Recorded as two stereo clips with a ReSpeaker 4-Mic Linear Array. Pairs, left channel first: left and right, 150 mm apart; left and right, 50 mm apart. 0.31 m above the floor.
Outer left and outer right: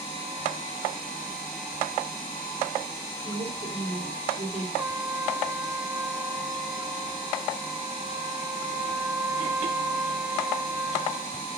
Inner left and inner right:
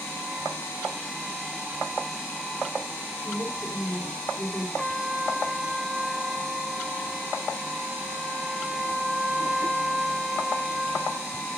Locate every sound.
3.2 s a woman speaking: 40° right (ahead or behind), 8 m
4.8 s a trumpet: 15° right (ahead or behind), 1.1 m